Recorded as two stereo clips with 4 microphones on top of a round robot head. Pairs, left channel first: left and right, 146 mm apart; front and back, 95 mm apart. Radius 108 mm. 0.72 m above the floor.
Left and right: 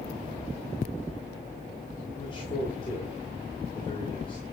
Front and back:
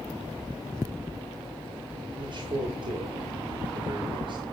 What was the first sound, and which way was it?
A man speaking, 150° left.